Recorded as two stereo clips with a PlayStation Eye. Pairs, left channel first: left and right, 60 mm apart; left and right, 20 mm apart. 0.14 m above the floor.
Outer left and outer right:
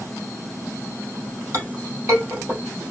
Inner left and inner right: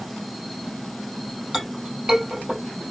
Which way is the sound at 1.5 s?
50° right (ahead or behind).